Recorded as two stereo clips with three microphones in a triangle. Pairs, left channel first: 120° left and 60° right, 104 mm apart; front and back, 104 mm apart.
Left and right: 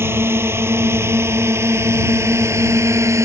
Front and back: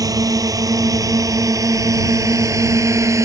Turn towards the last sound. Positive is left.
turn(degrees=-120)